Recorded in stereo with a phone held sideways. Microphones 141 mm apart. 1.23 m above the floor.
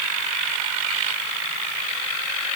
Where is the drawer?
No drawer in this recording.